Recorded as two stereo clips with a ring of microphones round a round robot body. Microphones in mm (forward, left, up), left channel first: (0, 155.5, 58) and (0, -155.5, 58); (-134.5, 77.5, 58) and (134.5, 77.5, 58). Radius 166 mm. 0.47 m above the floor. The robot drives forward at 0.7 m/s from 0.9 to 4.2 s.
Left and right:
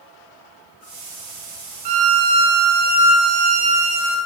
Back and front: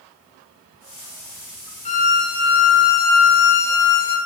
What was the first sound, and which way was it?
A violin, 110° right.